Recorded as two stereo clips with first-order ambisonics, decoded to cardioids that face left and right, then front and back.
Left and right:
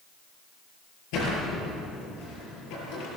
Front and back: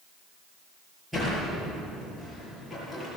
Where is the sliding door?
95° left, 8.5 m.